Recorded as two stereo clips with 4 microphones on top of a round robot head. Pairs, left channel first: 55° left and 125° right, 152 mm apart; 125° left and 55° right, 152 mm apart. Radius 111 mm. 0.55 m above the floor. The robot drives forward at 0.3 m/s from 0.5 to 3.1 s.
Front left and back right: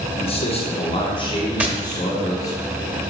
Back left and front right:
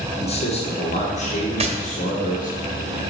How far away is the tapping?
About 1.1 m.